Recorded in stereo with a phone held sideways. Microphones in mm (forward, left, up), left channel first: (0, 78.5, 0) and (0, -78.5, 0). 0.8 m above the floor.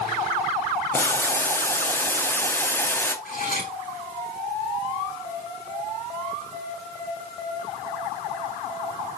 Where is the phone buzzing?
I don't hear a phone buzzing.